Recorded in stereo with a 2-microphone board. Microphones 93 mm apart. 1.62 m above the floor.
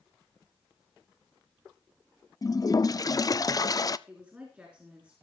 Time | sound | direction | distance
2.4 | a toilet flushing | 40° left (ahead or behind) | 0.5 m
4.1 | a woman speaking | 15° right (ahead or behind) | 4 m